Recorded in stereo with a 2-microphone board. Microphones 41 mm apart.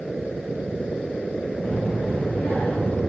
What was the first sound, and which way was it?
A child speaking, 20° left (ahead or behind).